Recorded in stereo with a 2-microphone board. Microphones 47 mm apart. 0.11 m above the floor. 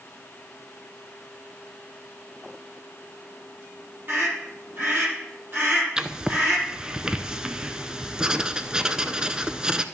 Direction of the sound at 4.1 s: 45° right (ahead or behind).